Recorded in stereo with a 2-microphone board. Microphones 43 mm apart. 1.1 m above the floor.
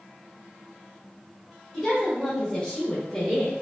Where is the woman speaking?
25° left (ahead or behind), 1.9 m; by 3.5 s 20° left (ahead or behind), 1.0 m.